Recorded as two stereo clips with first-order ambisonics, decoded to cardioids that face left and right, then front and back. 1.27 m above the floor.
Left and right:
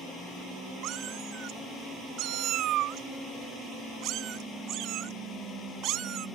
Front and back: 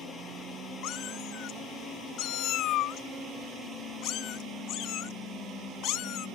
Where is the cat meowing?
45° right.